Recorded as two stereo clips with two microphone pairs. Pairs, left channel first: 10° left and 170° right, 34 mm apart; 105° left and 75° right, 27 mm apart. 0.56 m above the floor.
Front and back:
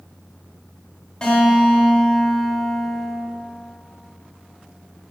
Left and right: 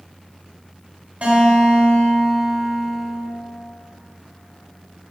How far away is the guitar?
About 0.8 m.